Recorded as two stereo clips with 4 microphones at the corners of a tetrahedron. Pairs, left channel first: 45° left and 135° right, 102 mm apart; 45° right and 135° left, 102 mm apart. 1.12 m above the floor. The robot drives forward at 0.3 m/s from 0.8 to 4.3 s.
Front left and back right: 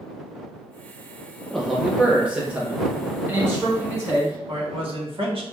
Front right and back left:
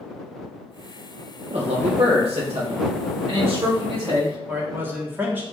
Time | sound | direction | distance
1.5 | a man speaking | 130° left | 0.5 m
4.5 | a man speaking | 155° right | 1.1 m